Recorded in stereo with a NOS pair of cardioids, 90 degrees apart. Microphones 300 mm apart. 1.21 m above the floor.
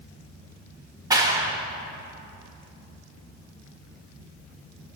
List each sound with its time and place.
1.1 s a clap: 10° right, 1.1 m